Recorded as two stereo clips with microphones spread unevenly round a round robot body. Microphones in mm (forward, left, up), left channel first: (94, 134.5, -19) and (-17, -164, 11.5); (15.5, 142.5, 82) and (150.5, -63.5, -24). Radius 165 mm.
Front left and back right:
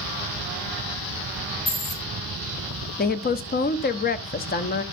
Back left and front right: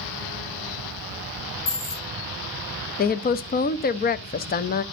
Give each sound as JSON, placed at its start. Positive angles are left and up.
{"t": 1.7, "sound": "a dropped coin", "azimuth_deg": 85, "distance_m": 6.0}
{"t": 3.0, "sound": "a woman speaking", "azimuth_deg": 55, "distance_m": 0.7}